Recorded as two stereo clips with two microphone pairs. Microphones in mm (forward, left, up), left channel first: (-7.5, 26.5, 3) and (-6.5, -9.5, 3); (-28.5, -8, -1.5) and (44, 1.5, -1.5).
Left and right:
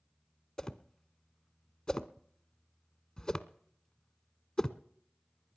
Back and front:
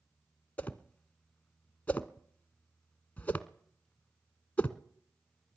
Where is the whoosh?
140° left, 0.7 m.